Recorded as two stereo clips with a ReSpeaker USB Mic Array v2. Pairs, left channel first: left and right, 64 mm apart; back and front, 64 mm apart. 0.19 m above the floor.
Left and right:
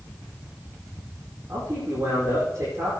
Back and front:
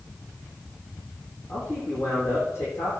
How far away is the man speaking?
About 8.5 m.